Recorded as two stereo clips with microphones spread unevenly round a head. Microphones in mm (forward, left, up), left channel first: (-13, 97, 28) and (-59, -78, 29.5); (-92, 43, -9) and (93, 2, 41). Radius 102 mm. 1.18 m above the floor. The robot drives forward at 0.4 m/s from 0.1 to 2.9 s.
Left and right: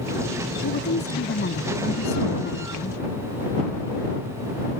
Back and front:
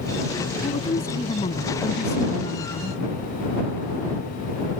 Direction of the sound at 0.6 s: 105° left.